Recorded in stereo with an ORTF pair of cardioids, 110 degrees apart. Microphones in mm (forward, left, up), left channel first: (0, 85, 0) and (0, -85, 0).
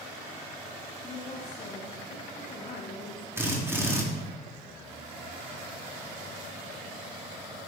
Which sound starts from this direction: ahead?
A drill, at 3.4 s.